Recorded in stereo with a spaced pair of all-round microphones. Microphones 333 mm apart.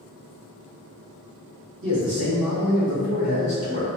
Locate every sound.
1.8 s a man speaking: 80° right, 1.4 m; by 3.9 s 45° right (ahead or behind), 1.7 m